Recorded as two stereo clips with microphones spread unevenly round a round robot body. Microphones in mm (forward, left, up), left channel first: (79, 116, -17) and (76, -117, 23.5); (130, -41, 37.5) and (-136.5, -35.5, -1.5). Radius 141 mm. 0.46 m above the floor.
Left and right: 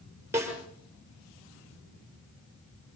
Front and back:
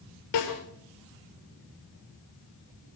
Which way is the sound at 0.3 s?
10° right.